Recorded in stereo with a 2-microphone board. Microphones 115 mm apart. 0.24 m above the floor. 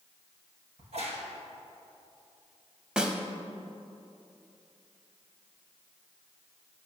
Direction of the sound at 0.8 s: 70° right (ahead or behind).